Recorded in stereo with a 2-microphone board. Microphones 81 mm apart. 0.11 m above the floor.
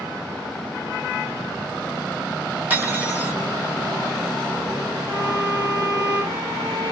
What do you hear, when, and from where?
2.7 s cutlery clinking: 20° right (ahead or behind), 2 m
5.1 s a violin: 50° right (ahead or behind), 3 m